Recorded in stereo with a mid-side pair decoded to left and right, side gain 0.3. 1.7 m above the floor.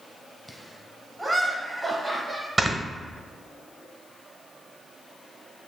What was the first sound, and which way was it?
Laughter, 5° right.